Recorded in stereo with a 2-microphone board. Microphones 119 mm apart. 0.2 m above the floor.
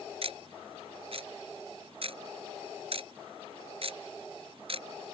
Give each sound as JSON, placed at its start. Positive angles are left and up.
{"t": 0.2, "sound": "ticking", "side_deg": -55}